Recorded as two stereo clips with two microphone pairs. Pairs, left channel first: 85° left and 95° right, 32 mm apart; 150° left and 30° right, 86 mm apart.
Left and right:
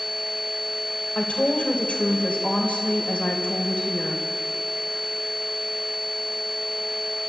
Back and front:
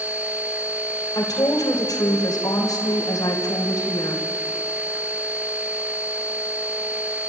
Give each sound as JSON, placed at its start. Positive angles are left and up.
{"t": 1.1, "sound": "a woman speaking", "azimuth_deg": 115, "distance_m": 3.0}